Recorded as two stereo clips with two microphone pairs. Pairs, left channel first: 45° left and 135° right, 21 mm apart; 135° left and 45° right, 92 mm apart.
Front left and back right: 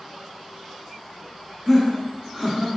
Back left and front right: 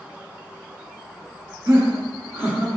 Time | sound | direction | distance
1.7 | laughter | 60° right | 1.7 m